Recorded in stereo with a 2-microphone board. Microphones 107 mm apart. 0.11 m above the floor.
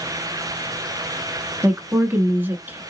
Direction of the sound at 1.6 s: 20° right (ahead or behind).